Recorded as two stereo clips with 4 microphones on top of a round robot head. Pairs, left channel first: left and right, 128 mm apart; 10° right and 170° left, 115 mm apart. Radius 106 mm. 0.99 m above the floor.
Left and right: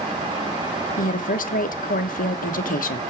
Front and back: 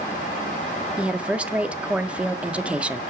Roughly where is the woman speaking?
Left.